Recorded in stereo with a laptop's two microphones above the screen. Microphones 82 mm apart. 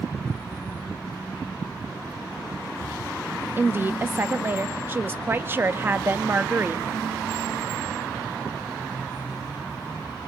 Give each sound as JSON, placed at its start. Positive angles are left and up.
{"t": 3.6, "sound": "a woman speaking", "side_deg": -25, "distance_m": 1.4}